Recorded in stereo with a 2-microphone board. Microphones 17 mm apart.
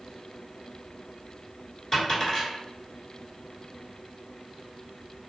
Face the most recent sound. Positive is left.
turn(degrees=25)  # may be behind; listen again after turning